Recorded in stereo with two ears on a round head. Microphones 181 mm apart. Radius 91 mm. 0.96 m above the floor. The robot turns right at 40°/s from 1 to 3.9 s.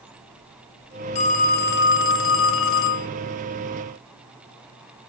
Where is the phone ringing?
35° left, 0.5 m; by 3.1 s 110° left, 0.5 m.